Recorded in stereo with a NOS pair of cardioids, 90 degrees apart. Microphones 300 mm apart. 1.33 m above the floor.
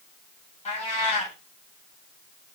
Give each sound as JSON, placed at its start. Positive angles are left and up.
{"t": 0.7, "sound": "a cat meowing", "azimuth_deg": 25, "distance_m": 3.5}